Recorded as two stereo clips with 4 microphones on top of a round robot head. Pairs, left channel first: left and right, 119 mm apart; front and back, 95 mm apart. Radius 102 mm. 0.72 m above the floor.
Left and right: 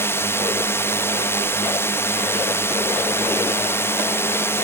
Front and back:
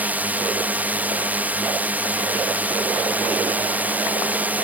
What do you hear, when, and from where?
0.0 s a drone: 130° left